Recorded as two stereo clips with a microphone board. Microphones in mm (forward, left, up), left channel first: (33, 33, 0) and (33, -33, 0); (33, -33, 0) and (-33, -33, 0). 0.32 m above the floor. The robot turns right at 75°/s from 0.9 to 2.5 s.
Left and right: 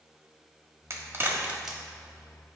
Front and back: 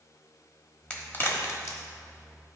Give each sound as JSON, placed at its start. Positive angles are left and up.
{"t": 0.9, "sound": "a crack", "azimuth_deg": -65, "distance_m": 1.2}